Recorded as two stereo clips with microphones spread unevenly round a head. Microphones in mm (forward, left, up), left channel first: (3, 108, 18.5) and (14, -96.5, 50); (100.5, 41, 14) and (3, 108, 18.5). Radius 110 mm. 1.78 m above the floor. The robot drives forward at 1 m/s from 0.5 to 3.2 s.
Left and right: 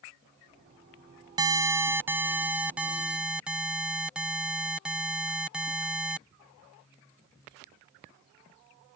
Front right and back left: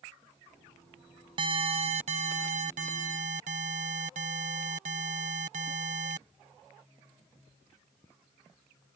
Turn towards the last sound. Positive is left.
turn(degrees=-175)